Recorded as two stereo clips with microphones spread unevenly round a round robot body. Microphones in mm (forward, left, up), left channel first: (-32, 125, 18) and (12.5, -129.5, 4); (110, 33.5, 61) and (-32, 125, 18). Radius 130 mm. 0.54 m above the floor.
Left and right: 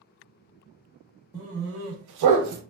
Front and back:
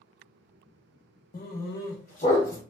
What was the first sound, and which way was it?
A dog barking, 10° right.